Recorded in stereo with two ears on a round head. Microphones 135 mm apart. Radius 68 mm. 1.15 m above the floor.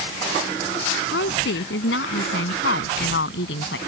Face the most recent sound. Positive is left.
turn(degrees=75)  # may be behind; listen again after turning